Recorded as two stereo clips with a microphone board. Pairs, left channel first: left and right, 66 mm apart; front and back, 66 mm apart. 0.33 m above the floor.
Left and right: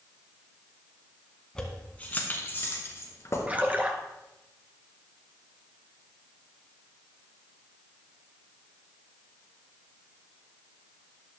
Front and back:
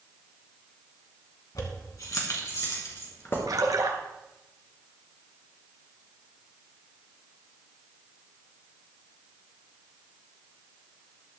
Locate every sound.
1.6 s keys jangling: 10° left, 2 m; by 3.4 s 50° left, 3.5 m
3.5 s a splash: 155° right, 1.4 m